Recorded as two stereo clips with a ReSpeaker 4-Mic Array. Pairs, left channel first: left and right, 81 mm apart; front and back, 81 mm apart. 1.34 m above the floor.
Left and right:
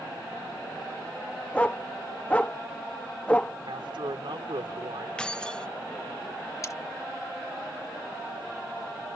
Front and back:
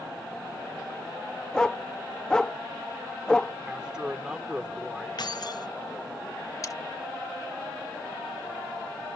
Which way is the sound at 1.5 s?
60° left.